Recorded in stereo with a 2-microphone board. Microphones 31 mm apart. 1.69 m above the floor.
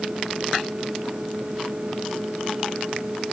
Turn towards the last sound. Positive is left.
No sound to turn to.